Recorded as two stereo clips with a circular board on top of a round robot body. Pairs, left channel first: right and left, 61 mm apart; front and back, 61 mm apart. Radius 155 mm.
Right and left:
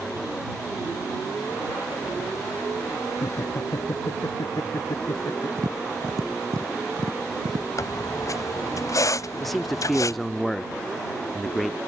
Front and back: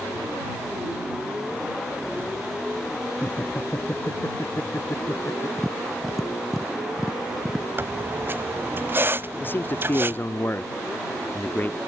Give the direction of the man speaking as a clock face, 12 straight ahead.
12 o'clock.